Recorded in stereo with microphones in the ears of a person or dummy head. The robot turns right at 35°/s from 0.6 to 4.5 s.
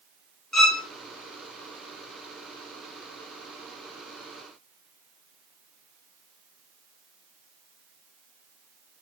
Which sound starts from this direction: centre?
A violin, at 0.5 s.